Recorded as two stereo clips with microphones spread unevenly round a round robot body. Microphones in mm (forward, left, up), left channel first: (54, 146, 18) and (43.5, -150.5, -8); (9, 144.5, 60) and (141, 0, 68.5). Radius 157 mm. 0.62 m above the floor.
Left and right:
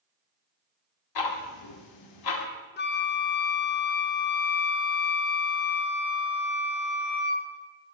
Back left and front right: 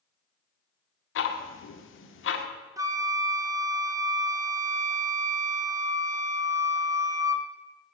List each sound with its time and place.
1.1 s ticking: 115° left, 0.8 m
2.8 s a flute: 30° left, 0.7 m